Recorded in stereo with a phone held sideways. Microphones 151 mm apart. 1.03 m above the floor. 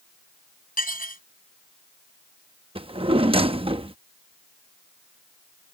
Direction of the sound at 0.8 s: 70° left (ahead or behind).